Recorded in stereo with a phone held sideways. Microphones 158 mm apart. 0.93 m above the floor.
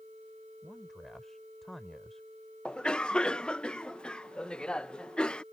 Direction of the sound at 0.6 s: Centre (ahead or behind).